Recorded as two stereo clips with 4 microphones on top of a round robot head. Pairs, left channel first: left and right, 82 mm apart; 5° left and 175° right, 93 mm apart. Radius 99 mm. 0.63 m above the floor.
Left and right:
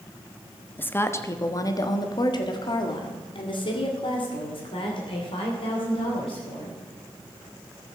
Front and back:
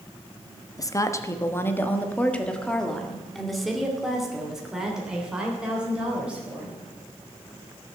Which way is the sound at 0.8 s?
30° left.